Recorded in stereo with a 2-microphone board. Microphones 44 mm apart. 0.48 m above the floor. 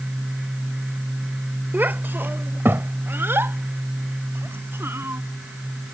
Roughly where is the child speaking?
Right.